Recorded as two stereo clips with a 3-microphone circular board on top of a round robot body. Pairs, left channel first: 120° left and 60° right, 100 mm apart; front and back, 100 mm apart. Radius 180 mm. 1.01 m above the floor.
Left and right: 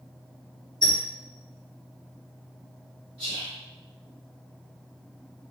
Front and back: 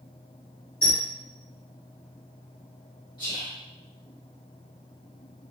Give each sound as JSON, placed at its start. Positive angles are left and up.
{"t": 0.8, "sound": "a squeak", "azimuth_deg": -70, "distance_m": 1.3}
{"t": 3.2, "sound": "whispering", "azimuth_deg": -50, "distance_m": 1.6}